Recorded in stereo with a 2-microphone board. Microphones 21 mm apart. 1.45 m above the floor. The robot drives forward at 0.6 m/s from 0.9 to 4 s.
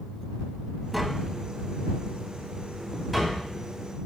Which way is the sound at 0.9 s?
5° right (ahead or behind).